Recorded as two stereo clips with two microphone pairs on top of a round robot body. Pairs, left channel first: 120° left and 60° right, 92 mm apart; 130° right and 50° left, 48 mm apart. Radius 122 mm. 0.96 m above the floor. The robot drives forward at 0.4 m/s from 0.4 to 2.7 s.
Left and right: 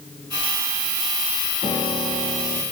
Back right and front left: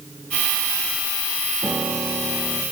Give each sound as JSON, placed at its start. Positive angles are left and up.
{"t": 1.6, "sound": "a piano", "azimuth_deg": 95, "distance_m": 1.0}